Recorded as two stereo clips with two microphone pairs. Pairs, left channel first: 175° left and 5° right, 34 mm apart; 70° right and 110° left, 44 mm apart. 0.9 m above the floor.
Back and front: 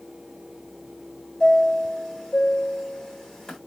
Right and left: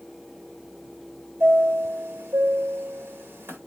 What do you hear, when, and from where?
1.4 s a chime: 105° left, 1.6 m